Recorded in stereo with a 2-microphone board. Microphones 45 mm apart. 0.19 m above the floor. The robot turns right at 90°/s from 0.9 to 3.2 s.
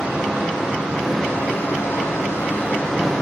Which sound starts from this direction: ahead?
Running water, at 0.0 s.